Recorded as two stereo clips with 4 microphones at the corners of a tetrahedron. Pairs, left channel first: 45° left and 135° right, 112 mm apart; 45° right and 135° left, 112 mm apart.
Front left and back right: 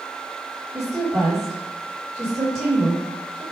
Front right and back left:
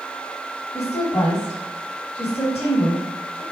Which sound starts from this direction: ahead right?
A woman speaking, at 0.7 s.